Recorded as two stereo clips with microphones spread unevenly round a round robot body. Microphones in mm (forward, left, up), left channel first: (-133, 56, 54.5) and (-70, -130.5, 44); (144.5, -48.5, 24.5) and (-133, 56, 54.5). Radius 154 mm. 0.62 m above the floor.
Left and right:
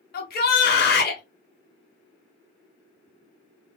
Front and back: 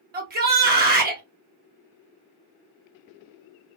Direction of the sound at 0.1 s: 105° left.